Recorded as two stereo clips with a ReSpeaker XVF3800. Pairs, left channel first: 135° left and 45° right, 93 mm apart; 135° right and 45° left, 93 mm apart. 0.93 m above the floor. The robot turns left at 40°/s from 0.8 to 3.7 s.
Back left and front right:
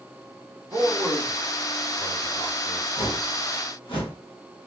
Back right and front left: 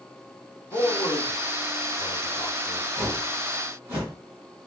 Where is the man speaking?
105° right, 1.2 m; by 2.9 s 175° left, 1.2 m.